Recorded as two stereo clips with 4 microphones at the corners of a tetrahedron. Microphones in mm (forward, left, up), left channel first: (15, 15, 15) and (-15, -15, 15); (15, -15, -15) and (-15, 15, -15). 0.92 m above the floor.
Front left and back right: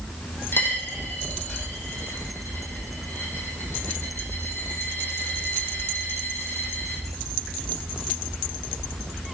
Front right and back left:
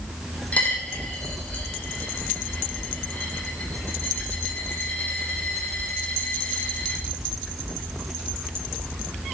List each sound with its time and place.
0.5 s a dropped coin: 15° left, 4 m